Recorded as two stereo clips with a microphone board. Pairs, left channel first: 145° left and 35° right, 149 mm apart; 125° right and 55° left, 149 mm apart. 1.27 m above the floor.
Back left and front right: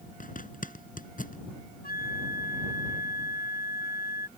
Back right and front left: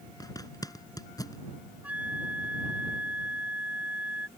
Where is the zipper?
170° left.